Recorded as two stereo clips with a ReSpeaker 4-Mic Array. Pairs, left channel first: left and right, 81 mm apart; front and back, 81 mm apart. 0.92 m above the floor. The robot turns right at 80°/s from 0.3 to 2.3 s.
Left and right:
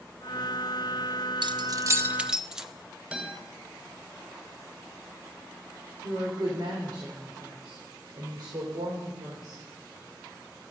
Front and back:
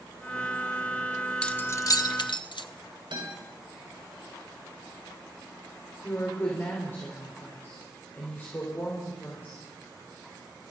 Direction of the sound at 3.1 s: 170° right.